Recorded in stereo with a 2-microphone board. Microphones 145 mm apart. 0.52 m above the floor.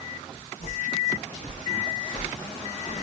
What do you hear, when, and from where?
0.6 s footsteps: 75° left (ahead or behind), 3.5 m; by 3.0 s 55° left (ahead or behind), 1.6 m